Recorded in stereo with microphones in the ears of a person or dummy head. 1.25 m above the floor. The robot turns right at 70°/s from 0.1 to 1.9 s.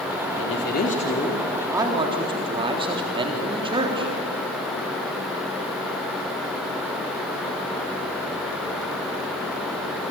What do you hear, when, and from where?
0.4 s a man speaking: 105° left, 3.5 m; by 4.1 s 150° right, 3.5 m